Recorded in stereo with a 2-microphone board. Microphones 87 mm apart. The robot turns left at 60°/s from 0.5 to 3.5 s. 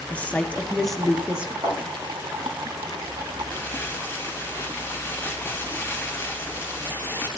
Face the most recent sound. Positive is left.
turn(degrees=25)  # may be behind; listen again after turning